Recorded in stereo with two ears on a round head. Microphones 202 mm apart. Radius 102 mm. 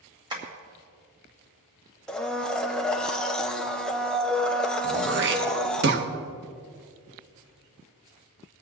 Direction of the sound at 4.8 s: 50° right (ahead or behind).